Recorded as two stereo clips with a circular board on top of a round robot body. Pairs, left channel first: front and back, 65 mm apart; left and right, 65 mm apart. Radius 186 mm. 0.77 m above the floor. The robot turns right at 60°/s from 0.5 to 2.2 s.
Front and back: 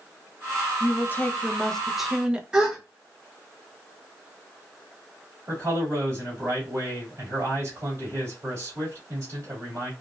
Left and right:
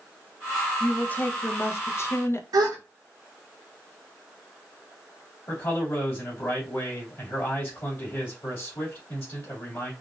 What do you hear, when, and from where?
0.8 s a woman speaking: 25° left, 0.8 m; by 2.4 s 110° left, 0.8 m
2.5 s a gasp: 100° right, 0.9 m
5.5 s a man speaking: 135° left, 2 m